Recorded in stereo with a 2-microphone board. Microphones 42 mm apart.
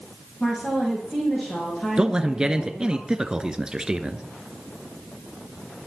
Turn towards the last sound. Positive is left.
turn(degrees=-20)  # may be behind; listen again after turning